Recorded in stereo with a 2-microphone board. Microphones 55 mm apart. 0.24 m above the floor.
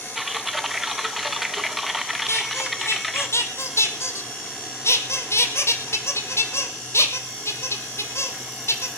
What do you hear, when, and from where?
0.1 s typing on a keyboard: 5° right (ahead or behind), 0.7 m
2.3 s a squeak: 50° left (ahead or behind), 1.5 m